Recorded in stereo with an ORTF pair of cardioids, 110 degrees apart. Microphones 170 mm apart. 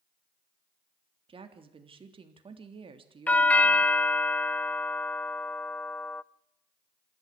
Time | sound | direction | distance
1.3 | a woman speaking | 30° right | 3.5 m
3.3 | a doorbell | 10° left | 0.6 m